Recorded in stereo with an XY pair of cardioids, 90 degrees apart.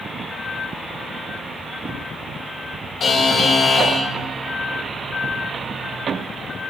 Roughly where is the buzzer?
Ahead left.